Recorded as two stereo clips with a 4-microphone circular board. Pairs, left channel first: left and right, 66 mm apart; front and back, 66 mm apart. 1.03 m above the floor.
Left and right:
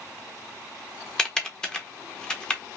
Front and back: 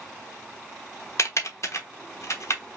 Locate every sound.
1.2 s typing on a keyboard: 15° left, 1.1 m